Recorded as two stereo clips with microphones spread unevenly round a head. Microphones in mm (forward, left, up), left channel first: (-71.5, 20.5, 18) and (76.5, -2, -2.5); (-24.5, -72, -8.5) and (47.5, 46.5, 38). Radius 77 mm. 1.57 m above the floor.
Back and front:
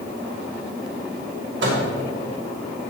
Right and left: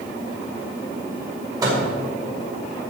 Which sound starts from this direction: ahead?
A microwave, at 1.6 s.